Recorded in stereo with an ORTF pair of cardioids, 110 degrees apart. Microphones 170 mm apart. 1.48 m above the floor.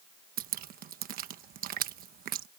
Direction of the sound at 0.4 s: 60° right.